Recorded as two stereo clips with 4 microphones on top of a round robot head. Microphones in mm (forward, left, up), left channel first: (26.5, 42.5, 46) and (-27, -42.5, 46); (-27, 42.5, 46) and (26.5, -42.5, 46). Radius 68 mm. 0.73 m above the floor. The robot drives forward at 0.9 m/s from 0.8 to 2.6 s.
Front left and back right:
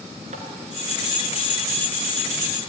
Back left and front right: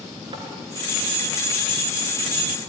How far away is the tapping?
About 4 m.